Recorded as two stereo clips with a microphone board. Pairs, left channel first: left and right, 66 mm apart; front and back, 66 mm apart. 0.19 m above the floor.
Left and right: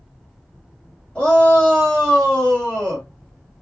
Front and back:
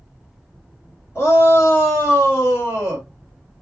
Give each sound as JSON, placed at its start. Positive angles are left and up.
{"t": 1.1, "sound": "a shout", "azimuth_deg": 25, "distance_m": 1.8}